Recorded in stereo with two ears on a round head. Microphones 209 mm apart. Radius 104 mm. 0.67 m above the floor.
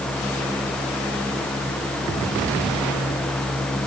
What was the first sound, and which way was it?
Only background noise.